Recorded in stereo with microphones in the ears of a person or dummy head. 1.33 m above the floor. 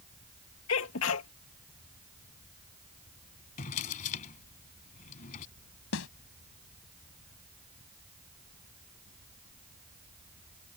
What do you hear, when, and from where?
0.7 s a sneeze: 70° left (ahead or behind)
3.6 s a drawer: 45° left (ahead or behind)
5.9 s a snare drum: 80° left